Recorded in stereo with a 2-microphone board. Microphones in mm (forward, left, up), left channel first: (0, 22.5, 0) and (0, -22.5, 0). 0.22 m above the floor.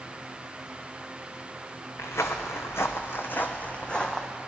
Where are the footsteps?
80° left, 1.2 m; by 4.3 s 15° left (ahead or behind), 1.1 m.